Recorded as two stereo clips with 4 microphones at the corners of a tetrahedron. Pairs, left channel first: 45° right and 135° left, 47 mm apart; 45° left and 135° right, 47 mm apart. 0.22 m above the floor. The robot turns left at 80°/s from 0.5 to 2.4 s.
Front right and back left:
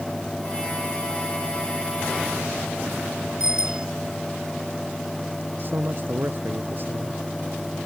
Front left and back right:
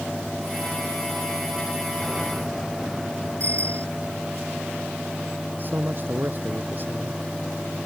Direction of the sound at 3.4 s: 150° right.